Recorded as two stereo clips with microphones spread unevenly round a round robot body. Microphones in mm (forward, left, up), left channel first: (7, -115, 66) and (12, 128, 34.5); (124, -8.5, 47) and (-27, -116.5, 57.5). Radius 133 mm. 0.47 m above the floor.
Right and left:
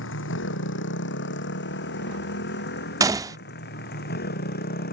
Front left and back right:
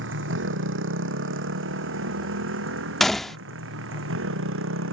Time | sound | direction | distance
0.0 | a motorcycle | 135° right | ?
3.0 | a gunshot | 115° left | ?